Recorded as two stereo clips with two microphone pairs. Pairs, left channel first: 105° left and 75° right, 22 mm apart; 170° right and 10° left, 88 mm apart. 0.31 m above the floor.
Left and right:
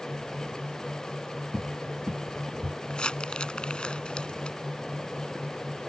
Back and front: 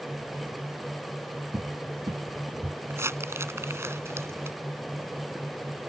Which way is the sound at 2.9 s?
70° left.